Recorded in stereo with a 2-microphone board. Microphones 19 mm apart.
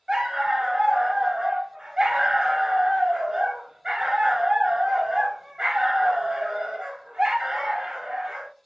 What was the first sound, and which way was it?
A dog barking, 45° right (ahead or behind).